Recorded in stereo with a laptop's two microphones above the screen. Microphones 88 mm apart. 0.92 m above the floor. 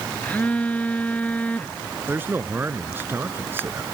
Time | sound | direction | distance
0.2 | a phone buzzing | 20° left (ahead or behind) | ?
2.1 | a man speaking | 25° right (ahead or behind) | ?